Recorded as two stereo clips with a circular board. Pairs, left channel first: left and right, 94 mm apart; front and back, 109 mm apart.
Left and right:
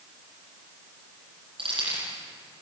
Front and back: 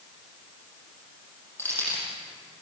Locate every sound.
1.6 s keys jangling: 70° right, 9 m